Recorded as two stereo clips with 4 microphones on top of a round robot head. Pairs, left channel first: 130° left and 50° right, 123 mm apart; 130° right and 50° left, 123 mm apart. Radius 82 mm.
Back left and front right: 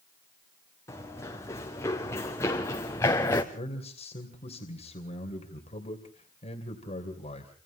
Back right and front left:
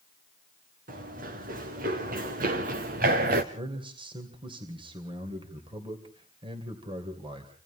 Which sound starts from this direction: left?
A man speaking, at 3.5 s.